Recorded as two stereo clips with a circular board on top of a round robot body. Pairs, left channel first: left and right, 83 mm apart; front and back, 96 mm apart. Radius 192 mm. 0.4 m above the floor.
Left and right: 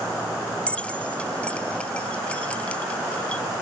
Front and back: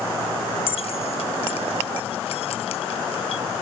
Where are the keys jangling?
15° left.